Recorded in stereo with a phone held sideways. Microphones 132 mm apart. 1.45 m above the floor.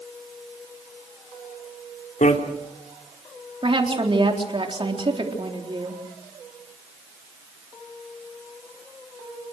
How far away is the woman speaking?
About 4 m.